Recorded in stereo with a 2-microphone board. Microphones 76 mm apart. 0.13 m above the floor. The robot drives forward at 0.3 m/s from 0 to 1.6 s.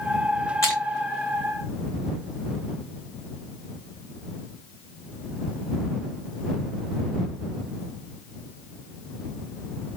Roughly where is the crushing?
Left.